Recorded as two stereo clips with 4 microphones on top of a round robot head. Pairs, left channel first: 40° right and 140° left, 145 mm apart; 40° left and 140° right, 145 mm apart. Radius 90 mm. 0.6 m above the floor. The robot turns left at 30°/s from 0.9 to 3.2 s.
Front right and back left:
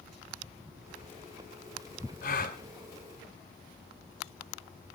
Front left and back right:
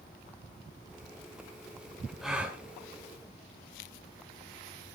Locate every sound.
2.2 s a gasp: 50° right, 2 m; by 2.6 s 65° right, 2 m